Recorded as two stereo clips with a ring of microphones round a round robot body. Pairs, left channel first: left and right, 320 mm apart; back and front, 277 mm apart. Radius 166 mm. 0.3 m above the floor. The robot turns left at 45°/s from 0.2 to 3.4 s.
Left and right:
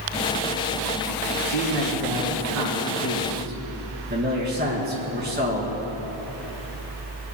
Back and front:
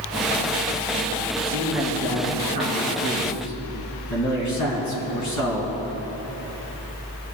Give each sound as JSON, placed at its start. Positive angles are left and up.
{"t": 1.4, "sound": "a man speaking", "azimuth_deg": -60, "distance_m": 3.0}